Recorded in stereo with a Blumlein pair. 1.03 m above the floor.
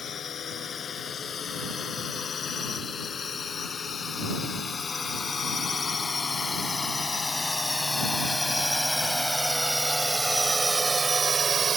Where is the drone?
25° left; by 11.8 s 20° right.